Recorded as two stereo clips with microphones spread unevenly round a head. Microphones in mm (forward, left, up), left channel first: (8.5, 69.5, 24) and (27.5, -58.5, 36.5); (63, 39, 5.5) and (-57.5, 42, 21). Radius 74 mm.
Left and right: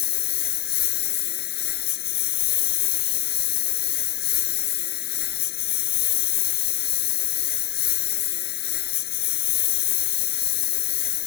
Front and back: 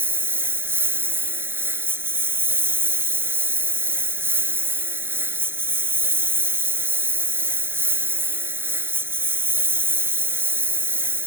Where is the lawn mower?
110° left.